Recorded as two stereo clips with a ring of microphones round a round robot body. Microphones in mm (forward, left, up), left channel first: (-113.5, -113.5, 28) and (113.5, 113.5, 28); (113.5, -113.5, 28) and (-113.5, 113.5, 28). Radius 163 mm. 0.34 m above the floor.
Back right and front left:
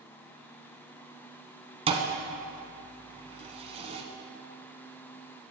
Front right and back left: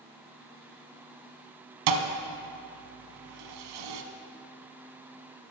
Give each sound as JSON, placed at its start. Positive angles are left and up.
{"t": 1.9, "sound": "a thud", "azimuth_deg": 120, "distance_m": 0.9}